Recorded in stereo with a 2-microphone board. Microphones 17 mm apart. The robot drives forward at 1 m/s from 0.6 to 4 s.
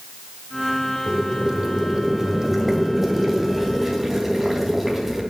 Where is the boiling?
50° right (ahead or behind), 1.4 m; by 5.2 s 15° right (ahead or behind), 4 m.